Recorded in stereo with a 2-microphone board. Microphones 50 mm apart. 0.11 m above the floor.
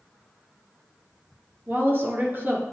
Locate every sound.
1.7 s a woman speaking: 40° right (ahead or behind), 1.8 m